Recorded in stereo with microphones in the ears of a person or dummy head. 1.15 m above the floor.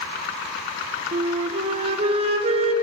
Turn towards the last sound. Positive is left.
turn(degrees=-35)  # may be behind; listen again after turning